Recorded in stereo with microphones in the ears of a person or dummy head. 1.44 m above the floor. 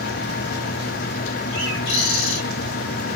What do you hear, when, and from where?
1.5 s a bird: 65° left (ahead or behind), 4 m